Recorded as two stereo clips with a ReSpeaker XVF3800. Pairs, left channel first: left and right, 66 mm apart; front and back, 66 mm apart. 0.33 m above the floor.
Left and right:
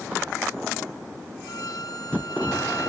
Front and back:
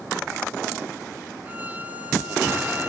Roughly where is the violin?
Behind left.